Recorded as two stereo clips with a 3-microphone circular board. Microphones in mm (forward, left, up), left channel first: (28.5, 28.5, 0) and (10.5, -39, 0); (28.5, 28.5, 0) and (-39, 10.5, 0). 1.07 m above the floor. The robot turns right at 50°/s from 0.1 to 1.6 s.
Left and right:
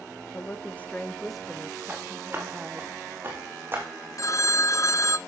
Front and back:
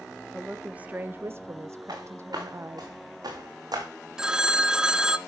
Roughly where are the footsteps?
Behind.